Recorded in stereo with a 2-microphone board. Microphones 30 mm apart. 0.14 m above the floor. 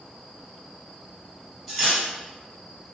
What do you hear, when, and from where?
1.7 s cutlery clinking: centre (ahead or behind), 1.9 m